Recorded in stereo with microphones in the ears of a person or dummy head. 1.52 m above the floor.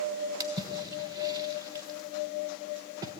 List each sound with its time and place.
0.4 s a splash: 20° right (ahead or behind), 1.3 m